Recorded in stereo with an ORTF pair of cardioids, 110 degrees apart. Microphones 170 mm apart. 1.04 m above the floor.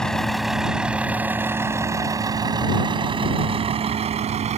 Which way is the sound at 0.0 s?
5° left.